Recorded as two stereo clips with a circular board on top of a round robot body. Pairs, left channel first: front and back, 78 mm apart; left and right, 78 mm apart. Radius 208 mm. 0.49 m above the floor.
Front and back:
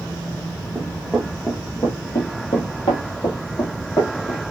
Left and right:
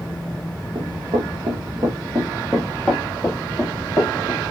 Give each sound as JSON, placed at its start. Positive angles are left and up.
{"t": 0.8, "sound": "running footsteps", "azimuth_deg": -100, "distance_m": 1.0}